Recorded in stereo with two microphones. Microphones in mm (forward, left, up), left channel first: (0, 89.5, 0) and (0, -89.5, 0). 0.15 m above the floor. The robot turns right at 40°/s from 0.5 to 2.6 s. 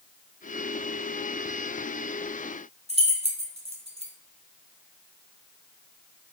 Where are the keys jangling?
35° right (ahead or behind), 0.9 m.